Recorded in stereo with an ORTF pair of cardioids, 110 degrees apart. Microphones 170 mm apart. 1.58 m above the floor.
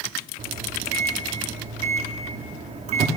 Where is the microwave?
45° right, 3 m.